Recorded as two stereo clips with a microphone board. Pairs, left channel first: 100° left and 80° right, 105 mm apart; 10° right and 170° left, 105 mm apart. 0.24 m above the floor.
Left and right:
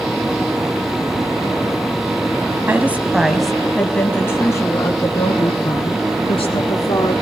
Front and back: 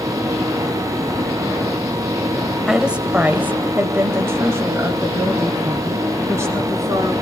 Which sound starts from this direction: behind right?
A woman speaking, at 2.7 s.